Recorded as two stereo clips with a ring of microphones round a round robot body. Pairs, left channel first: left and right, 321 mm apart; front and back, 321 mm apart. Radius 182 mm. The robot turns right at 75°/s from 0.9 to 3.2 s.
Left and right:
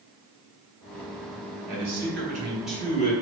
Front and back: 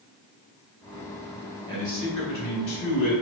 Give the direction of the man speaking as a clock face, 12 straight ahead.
3 o'clock.